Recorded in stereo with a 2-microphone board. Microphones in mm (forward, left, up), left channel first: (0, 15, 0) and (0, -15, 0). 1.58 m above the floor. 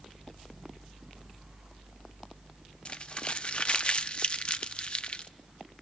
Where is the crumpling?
40° left (ahead or behind), 0.5 m.